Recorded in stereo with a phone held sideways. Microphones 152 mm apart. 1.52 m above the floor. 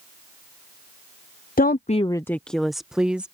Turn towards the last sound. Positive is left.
turn(degrees=-5)  # may be behind; listen again after turning